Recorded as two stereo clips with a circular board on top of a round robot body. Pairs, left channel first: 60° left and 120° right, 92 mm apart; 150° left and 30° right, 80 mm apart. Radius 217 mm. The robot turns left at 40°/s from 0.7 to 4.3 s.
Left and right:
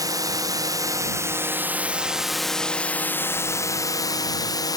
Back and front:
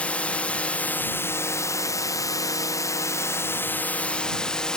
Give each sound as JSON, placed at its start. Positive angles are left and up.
{"t": 0.0, "sound": "a drone", "azimuth_deg": -145}